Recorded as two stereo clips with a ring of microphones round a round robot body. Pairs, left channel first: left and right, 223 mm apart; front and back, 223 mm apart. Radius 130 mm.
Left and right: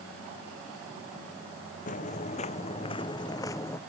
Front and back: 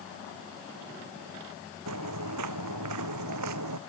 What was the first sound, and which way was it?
Footsteps, 150° left.